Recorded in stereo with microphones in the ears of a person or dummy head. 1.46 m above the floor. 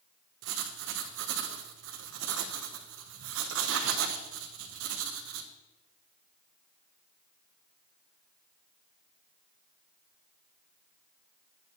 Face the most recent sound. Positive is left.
turn(degrees=-75)  # may be behind; listen again after turning